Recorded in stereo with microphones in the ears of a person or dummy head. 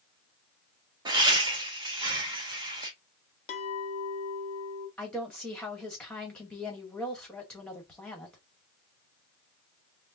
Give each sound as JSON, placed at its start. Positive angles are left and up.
{"t": 1.1, "sound": "laughter", "side_deg": -20, "distance_m": 1.6}
{"t": 3.5, "sound": "a clink", "side_deg": 35, "distance_m": 1.4}
{"t": 5.0, "sound": "a woman speaking", "side_deg": 10, "distance_m": 1.5}